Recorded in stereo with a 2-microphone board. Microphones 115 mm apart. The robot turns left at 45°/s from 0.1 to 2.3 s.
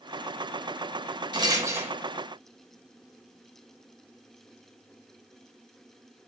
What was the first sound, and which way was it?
A rattle, 40° right (ahead or behind).